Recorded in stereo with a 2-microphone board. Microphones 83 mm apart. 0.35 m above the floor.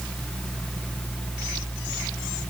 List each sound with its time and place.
Only background noise.